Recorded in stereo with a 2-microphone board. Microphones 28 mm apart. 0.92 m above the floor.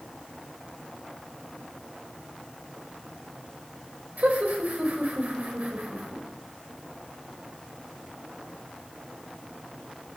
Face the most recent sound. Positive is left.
turn(degrees=-70)  # may be behind; listen again after turning